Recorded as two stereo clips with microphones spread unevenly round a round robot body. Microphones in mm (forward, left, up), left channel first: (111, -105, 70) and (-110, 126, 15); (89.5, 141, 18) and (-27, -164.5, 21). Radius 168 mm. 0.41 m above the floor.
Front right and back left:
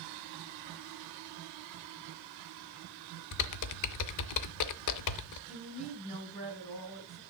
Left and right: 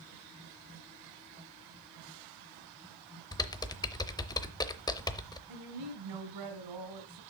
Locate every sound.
3.3 s typing on a keyboard: 10° right, 0.7 m
5.5 s a woman speaking: 120° right, 2 m